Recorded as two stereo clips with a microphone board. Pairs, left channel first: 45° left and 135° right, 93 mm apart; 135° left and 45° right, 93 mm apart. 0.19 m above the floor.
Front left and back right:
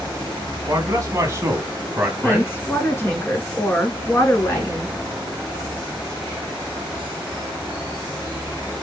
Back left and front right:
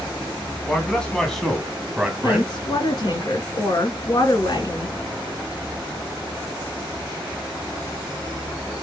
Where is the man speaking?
155° right, 1.7 m; by 3.2 s 30° right, 1.4 m.